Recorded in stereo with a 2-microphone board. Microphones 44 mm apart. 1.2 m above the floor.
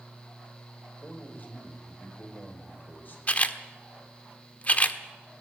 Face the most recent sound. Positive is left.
turn(degrees=35)  # may be behind; listen again after turning